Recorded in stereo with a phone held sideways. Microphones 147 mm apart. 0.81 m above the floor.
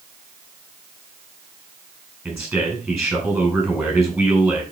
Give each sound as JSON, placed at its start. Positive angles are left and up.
{"t": 2.2, "sound": "a man speaking", "side_deg": -5, "distance_m": 5.5}